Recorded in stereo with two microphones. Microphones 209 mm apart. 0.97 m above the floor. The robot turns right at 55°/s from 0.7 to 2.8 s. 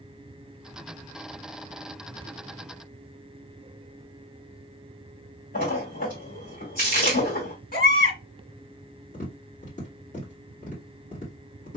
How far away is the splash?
About 2 m.